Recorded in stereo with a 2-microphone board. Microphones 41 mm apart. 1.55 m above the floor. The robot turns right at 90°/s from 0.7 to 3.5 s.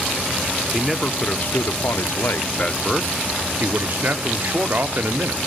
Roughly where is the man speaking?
Ahead.